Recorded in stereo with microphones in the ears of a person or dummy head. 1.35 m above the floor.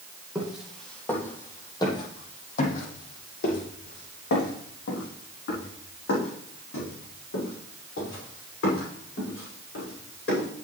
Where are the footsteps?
Centre (ahead or behind), 2.5 m; by 10.5 s 65° left (ahead or behind), 8.5 m.